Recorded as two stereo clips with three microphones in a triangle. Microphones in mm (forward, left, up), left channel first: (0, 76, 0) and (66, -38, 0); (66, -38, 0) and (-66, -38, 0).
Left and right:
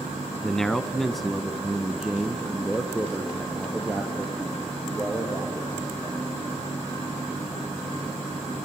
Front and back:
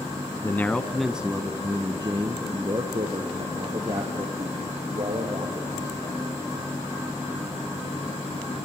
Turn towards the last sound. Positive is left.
turn(degrees=-145)